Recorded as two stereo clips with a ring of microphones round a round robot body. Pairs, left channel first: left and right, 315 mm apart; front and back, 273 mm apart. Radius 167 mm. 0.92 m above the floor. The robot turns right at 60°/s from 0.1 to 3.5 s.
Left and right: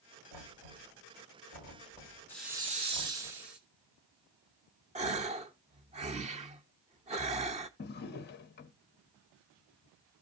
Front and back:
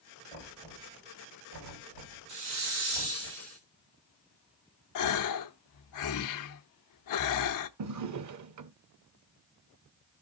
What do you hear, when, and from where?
0.3 s knocking: 65° left, 4 m; by 3.3 s 115° right, 4 m
2.3 s a hiss: 175° left, 1.9 m; by 3.6 s 115° right, 1.9 m
5.0 s a gasp: 20° right, 0.7 m
7.8 s a drawer: 150° left, 0.7 m